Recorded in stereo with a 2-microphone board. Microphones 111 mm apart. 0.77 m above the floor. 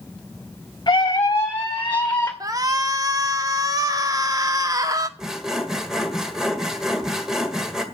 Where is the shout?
35° right (ahead or behind), 1.6 m.